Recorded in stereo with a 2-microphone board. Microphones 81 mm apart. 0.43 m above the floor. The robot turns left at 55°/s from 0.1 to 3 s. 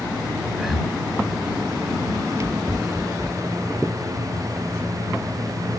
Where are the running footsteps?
5° right (ahead or behind); by 5.6 s 10° right (ahead or behind).